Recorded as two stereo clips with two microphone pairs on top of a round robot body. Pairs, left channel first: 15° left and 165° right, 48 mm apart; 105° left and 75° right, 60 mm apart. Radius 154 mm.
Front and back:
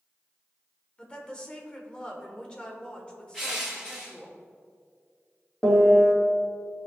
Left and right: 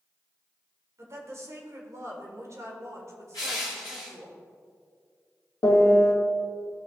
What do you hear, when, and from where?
1.0 s a woman speaking: 40° right, 1.5 m
3.3 s crushing: 100° left, 1.1 m
5.6 s a piano: 100° left, 1.6 m